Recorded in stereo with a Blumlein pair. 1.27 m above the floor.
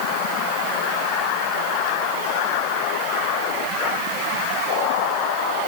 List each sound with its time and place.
Only background noise.